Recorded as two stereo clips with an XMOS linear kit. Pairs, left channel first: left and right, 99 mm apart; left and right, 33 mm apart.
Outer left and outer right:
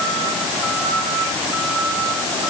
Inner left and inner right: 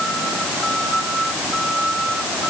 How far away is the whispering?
I don't hear whispering.